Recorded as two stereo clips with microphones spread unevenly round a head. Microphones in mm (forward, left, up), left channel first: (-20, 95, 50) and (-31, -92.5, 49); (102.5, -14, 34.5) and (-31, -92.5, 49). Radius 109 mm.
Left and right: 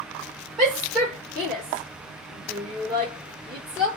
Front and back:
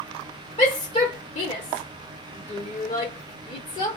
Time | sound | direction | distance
0.6 | a shout | straight ahead | 1.5 m